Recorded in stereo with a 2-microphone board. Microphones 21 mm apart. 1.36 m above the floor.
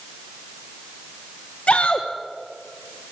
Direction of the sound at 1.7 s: 80° left.